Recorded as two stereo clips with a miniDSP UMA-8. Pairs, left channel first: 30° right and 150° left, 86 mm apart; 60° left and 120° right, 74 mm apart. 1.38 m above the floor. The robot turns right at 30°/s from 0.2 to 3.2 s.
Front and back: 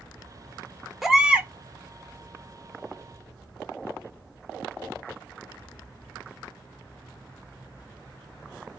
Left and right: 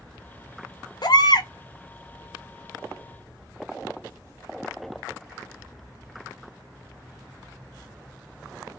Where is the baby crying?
60° left, 0.7 m; by 1.5 s 75° left, 0.7 m.